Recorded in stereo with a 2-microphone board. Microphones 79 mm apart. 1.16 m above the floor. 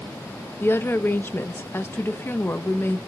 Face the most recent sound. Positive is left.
turn(degrees=25)  # may be behind; listen again after turning